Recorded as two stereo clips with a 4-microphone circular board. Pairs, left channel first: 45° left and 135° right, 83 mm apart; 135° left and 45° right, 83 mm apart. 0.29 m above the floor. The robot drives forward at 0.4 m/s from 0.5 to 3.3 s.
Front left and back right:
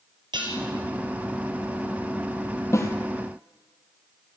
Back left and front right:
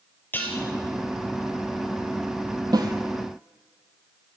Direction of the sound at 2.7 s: 10° right.